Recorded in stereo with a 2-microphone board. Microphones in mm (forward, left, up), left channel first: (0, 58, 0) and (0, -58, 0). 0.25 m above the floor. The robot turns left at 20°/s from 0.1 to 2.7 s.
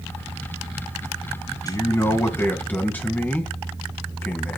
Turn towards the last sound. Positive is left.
turn(degrees=15)  # may be behind; listen again after turning